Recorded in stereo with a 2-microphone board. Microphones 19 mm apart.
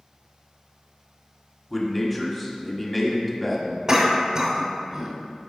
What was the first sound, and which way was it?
A man speaking, 10° left (ahead or behind).